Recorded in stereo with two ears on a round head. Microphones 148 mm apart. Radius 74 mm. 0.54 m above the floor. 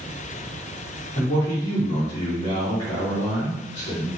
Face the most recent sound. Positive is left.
turn(degrees=30)  # may be behind; listen again after turning